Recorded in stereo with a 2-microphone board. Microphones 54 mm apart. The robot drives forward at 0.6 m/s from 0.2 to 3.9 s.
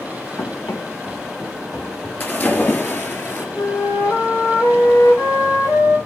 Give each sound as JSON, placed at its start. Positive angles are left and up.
{"t": 0.4, "sound": "running footsteps", "side_deg": 70, "distance_m": 3.0}
{"t": 2.2, "sound": "a splash", "side_deg": 35, "distance_m": 3.5}
{"t": 3.6, "sound": "a flute", "side_deg": 65, "distance_m": 3.5}